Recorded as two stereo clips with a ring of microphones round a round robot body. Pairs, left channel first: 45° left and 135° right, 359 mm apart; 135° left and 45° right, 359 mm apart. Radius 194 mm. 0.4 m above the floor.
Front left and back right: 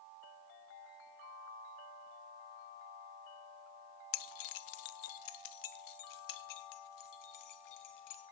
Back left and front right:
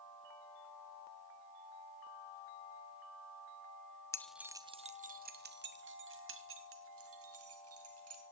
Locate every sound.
4.1 s keys jangling: 55° left, 0.7 m; by 8.2 s 5° left, 3 m